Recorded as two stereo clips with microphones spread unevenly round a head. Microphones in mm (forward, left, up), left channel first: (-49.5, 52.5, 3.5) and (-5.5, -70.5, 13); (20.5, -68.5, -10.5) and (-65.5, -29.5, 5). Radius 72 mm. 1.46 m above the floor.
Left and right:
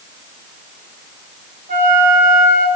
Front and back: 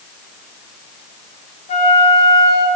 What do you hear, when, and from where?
1.7 s a flute: 30° right, 1.6 m